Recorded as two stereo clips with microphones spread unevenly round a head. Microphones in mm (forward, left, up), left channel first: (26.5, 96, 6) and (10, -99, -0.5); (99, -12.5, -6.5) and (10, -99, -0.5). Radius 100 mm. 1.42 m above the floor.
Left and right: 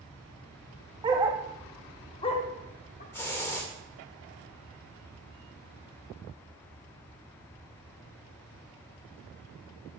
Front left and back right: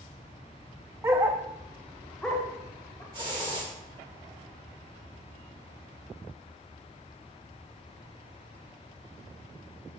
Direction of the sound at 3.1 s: 165° left.